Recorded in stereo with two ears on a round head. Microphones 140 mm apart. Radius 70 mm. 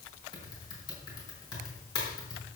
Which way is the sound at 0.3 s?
25° left (ahead or behind).